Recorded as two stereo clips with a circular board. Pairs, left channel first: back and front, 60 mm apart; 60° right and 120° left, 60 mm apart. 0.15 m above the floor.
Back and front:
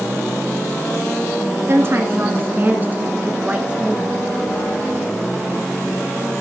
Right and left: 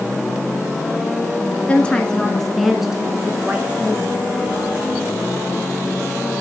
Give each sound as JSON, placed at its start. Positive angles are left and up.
{"t": 1.7, "sound": "a woman speaking", "azimuth_deg": 0, "distance_m": 1.7}